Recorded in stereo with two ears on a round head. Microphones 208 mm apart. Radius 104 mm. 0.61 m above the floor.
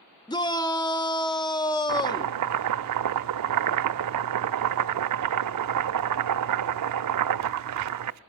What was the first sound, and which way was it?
A shout, 20° left (ahead or behind).